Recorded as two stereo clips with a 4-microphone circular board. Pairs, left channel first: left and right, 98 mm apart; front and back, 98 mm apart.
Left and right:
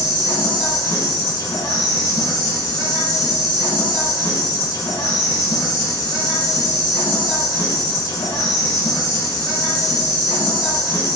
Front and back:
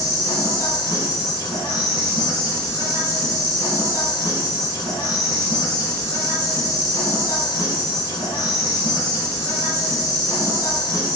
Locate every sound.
0.0 s an insect: 45° left, 2 m